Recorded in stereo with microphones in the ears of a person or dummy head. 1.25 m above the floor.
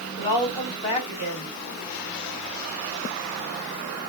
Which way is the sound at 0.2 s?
20° left (ahead or behind).